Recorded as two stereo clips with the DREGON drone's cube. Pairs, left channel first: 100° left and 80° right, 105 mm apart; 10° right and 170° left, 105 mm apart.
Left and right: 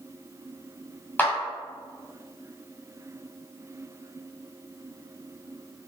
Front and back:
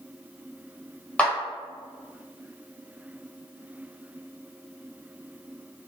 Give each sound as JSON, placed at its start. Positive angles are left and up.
{"t": 1.2, "sound": "a clap", "azimuth_deg": 50, "distance_m": 1.3}